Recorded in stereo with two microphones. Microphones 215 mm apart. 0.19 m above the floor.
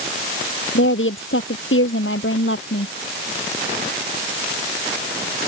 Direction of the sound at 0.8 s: 65° left (ahead or behind).